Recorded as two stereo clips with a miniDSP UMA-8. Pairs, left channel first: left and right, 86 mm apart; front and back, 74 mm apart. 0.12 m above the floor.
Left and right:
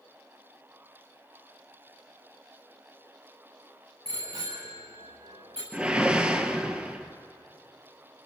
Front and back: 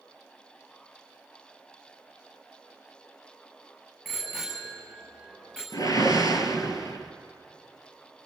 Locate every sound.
4.0 s a bicycle bell: 90° right, 8 m; by 5.6 s 85° right, 9 m
5.7 s a whoosh: 15° right, 1.6 m